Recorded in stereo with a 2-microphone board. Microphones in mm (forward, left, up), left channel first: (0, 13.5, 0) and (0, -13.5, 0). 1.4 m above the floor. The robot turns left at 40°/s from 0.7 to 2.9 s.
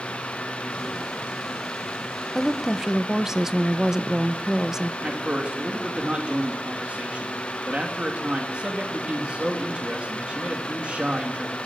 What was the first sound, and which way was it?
A woman speaking, 5° left (ahead or behind).